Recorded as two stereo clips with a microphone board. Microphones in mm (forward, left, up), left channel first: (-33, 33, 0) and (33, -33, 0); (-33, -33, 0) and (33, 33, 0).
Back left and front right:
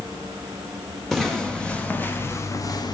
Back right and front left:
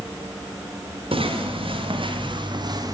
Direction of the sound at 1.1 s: 45° left.